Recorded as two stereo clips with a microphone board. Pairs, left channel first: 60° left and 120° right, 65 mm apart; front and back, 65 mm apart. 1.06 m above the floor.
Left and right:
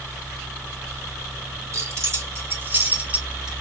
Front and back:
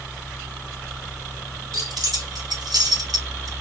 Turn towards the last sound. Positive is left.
turn(degrees=155)